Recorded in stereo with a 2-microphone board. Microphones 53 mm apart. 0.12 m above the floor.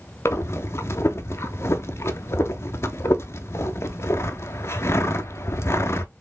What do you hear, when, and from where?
0.2 s breathing: 55° left (ahead or behind), 0.6 m